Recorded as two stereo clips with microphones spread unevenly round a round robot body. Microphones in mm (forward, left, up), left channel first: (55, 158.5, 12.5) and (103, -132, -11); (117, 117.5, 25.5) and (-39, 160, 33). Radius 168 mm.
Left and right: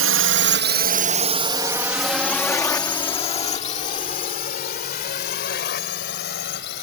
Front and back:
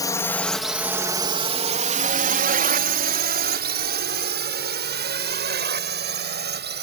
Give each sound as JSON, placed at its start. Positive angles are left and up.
{"t": 0.0, "sound": "a drone", "azimuth_deg": -80}